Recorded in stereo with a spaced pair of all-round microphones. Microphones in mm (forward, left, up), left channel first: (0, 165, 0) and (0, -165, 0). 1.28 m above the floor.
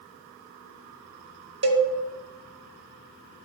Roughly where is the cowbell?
Right.